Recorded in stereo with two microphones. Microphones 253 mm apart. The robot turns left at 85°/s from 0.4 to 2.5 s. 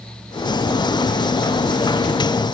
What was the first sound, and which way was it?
Only background noise.